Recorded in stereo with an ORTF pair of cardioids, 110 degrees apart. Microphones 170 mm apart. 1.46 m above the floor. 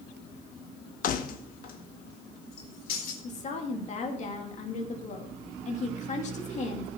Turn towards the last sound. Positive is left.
turn(degrees=45)